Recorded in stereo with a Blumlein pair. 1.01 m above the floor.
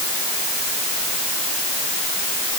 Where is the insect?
I don't hear an insect.